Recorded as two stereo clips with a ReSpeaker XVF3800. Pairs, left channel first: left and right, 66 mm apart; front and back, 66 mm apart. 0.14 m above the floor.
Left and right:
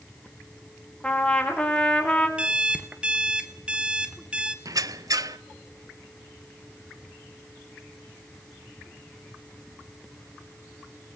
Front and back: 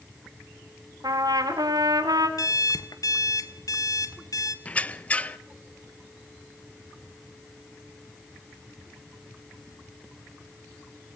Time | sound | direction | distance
1.0 | a trumpet | 165° left | 4 m
2.4 | an alarm clock | 15° right | 1.6 m
4.7 | a squeak | 70° right | 0.7 m